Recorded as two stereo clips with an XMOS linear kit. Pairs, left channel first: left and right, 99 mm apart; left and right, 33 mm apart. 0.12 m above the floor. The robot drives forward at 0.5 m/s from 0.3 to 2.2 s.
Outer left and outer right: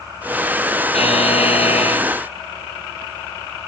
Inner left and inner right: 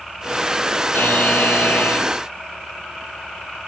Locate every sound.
0.9 s a buzzer: 80° left